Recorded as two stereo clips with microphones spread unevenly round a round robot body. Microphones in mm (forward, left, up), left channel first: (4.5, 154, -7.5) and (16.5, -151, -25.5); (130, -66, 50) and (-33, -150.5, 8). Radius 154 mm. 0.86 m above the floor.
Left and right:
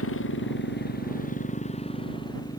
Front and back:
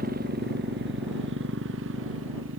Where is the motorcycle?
145° left; by 2.6 s 175° left.